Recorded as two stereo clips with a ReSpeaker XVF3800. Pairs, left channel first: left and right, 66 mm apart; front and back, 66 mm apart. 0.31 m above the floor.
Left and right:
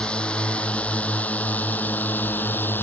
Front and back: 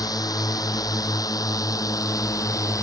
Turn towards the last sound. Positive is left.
turn(degrees=30)